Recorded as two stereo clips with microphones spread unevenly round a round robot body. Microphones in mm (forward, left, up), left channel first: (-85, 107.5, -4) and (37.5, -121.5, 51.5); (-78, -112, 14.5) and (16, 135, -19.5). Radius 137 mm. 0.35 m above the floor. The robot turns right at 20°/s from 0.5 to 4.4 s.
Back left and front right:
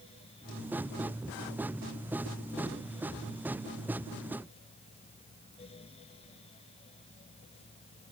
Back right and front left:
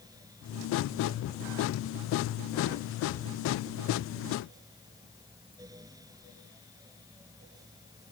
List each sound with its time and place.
Only background noise.